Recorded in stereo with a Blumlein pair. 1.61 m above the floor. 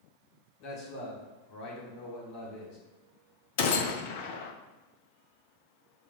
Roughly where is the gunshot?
Ahead left.